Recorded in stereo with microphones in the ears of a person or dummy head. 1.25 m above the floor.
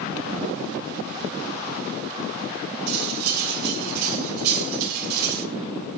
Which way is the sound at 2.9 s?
55° right (ahead or behind).